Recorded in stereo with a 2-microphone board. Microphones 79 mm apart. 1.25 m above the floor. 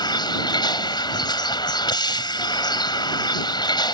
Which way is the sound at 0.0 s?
65° left (ahead or behind).